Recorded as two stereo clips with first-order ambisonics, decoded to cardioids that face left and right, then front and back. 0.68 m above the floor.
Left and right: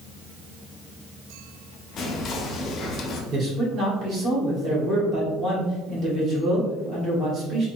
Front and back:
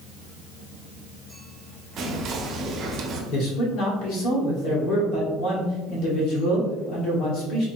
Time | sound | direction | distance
2.0 | whispering | 135° left | 0.7 m
3.3 | a man speaking | 35° right | 1.9 m